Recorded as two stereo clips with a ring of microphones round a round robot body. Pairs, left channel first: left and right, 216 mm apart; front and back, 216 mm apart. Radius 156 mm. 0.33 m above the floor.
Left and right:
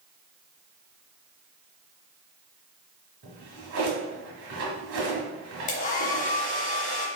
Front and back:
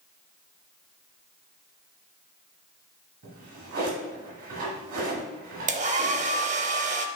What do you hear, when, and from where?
3.2 s a drawer: 125° right, 1.3 m
5.7 s a hair dryer: 135° left, 0.6 m